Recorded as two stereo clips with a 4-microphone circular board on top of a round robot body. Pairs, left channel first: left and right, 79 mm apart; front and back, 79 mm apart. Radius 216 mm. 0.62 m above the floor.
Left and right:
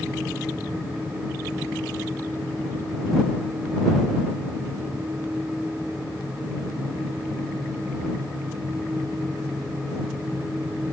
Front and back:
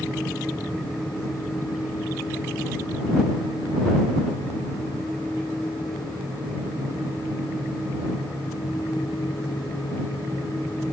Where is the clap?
No clap in this recording.